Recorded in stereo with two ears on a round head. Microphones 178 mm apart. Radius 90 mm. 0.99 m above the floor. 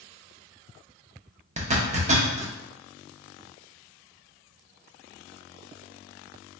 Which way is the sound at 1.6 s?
35° right (ahead or behind).